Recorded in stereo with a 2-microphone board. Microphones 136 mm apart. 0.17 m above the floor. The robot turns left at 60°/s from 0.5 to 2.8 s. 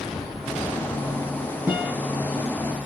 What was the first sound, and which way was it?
A guitar, 15° right (ahead or behind).